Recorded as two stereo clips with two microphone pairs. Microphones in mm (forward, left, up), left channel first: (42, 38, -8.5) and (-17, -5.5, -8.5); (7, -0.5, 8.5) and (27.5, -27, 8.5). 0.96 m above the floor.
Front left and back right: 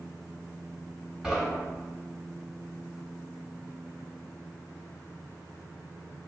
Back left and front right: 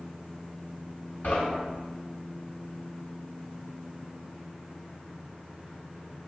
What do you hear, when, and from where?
1.2 s knocking: 135° left, 1.4 m